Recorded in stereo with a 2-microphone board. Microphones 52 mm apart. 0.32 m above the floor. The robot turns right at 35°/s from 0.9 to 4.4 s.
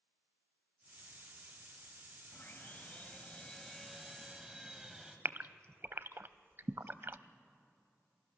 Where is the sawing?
120° left, 2 m; by 5.2 s 170° right, 2 m.